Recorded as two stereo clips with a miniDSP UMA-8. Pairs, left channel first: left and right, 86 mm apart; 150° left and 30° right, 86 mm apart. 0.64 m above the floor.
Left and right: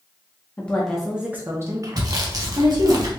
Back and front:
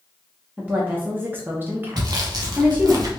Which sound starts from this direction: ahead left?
A woman speaking, at 0.6 s.